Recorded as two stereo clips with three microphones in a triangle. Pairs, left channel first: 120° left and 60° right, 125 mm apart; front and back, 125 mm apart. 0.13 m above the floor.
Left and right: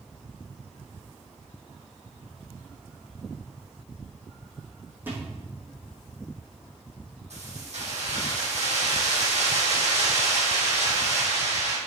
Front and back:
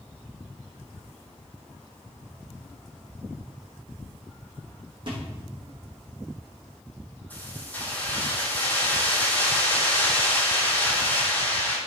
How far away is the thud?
About 4 m.